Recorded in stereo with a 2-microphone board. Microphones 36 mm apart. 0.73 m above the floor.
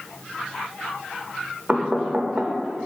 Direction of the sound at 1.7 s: 20° right (ahead or behind).